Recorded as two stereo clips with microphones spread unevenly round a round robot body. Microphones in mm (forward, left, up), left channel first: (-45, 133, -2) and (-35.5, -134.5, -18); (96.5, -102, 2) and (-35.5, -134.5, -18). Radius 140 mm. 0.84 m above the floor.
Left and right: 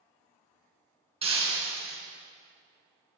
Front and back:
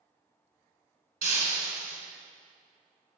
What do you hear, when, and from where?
1.2 s breaking glass: 160° right, 3.5 m